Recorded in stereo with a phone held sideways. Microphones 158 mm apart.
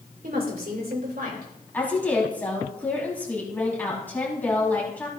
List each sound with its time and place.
0.2 s a woman speaking: 70° right (ahead or behind), 2.5 m; by 1.5 s 80° right, 4 m
1.7 s a woman speaking: 10° left (ahead or behind), 5.5 m